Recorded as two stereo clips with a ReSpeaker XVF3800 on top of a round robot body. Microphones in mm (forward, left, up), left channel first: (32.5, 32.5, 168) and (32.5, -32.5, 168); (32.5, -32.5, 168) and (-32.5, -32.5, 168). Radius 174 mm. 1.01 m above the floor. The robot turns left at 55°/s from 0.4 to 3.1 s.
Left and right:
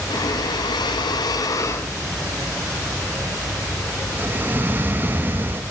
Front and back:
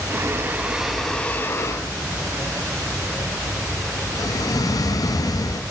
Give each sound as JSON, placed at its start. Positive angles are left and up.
{"t": 0.1, "sound": "breathing", "azimuth_deg": 120, "distance_m": 0.6}